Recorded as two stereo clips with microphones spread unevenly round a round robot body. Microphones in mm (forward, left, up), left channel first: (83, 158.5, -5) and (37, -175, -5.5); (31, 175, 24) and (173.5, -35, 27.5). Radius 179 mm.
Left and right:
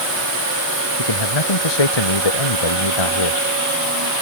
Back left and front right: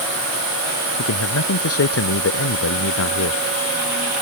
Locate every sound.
1.0 s a man speaking: 100° left